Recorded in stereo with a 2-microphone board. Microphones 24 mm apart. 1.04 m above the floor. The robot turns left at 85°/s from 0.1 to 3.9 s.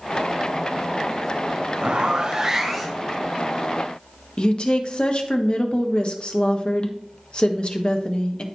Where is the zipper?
100° right, 1.9 m; by 3.1 s 155° left, 1.9 m.